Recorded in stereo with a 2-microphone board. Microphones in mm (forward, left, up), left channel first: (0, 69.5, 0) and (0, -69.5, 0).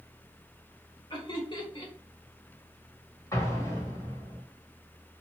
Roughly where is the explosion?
Left.